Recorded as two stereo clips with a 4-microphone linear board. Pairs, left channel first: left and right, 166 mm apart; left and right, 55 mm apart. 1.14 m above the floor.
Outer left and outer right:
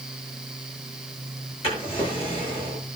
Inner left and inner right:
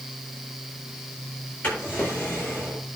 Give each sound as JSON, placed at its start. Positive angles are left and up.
{"t": 1.6, "sound": "a drawer", "side_deg": 40, "distance_m": 8.0}